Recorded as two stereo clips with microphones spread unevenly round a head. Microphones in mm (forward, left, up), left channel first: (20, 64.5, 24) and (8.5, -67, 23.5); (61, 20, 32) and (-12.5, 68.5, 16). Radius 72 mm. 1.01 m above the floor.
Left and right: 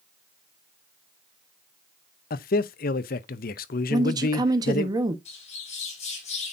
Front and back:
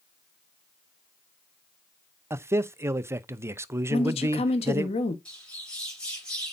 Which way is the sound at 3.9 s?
35° right.